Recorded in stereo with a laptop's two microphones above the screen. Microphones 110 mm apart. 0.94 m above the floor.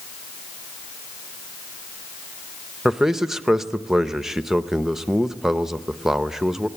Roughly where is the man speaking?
Centre.